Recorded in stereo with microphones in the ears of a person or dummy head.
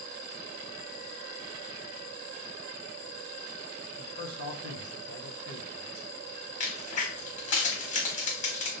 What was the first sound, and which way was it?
A man speaking, 55° right (ahead or behind).